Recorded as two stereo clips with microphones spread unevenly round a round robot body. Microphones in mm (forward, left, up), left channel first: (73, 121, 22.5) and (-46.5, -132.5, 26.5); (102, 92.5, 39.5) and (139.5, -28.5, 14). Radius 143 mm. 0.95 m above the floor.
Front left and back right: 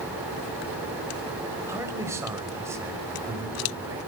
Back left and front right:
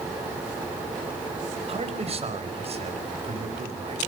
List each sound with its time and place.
1.7 s a man speaking: 35° right, 4.5 m